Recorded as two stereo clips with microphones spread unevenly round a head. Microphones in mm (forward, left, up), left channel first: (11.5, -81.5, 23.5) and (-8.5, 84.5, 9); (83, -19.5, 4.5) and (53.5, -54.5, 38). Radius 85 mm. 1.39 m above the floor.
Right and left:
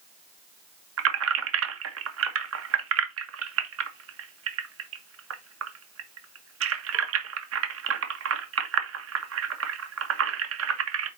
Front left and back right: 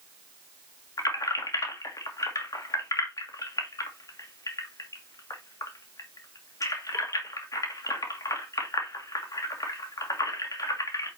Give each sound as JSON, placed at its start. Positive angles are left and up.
{"t": 1.0, "sound": "keys jangling", "azimuth_deg": 90, "distance_m": 1.3}